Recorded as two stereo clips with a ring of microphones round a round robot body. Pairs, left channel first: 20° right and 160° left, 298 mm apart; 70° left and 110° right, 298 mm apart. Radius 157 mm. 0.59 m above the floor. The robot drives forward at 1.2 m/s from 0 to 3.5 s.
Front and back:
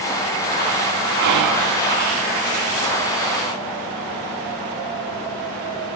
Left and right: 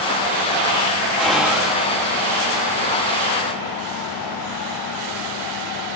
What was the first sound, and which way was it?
Whispering, 155° left.